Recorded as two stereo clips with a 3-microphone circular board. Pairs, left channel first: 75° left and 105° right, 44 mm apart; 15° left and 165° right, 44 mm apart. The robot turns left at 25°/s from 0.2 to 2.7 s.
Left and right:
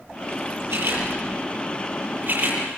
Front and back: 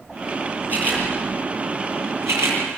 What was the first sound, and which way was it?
A camera shutter, 115° right.